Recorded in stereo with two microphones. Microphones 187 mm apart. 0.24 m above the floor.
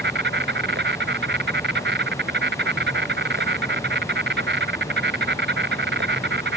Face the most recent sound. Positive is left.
turn(degrees=-80)